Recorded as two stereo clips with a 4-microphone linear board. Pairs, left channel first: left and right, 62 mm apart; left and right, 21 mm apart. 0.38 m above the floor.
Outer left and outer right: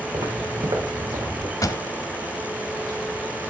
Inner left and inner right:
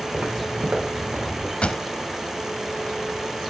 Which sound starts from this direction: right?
Footsteps, at 0.1 s.